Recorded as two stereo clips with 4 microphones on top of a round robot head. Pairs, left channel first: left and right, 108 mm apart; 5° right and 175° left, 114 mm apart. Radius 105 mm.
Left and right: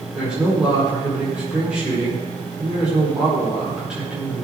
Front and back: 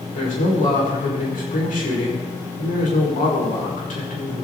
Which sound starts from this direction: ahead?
A man speaking, at 0.1 s.